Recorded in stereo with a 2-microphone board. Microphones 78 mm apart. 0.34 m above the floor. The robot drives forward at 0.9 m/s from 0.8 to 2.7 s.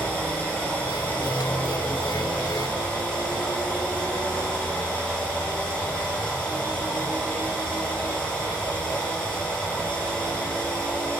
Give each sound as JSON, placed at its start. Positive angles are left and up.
{"t": 0.0, "sound": "running water", "side_deg": 20, "distance_m": 8.0}